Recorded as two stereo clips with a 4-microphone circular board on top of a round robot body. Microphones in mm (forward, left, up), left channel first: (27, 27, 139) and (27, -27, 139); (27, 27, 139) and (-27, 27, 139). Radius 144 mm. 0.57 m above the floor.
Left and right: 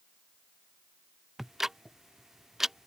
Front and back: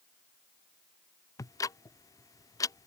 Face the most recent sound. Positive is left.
turn(degrees=-5)